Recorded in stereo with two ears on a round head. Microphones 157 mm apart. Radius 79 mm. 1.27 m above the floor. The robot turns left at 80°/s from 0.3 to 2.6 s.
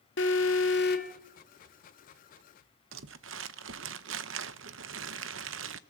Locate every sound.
0.2 s an alarm: 105° left, 2 m; by 1.1 s 40° left, 2 m
2.9 s crumpling: 75° right (ahead or behind), 0.8 m